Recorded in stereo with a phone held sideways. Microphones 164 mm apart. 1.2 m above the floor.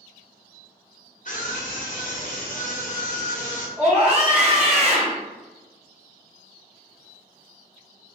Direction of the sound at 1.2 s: 55° left (ahead or behind).